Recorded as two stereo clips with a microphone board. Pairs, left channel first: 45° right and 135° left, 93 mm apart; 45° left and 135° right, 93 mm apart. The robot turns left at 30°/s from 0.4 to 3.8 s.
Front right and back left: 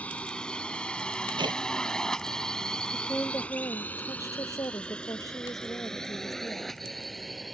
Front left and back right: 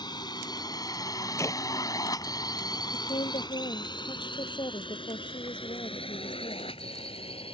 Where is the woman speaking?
35° left; by 6.7 s 10° left.